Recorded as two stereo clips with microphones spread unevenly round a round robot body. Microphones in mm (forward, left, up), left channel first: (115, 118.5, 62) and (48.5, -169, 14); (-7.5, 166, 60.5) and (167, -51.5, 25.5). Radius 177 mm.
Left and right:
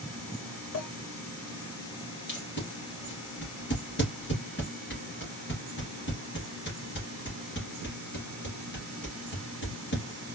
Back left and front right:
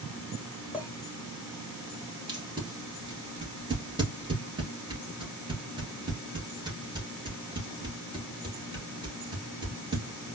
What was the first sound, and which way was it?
A clink, 35° left.